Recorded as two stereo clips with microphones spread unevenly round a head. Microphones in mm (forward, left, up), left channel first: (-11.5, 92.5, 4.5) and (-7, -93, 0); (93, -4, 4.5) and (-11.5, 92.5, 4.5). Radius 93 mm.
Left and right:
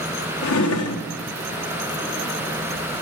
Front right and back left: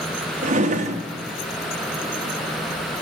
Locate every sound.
0.4 s a drawer: 100° left, 0.8 m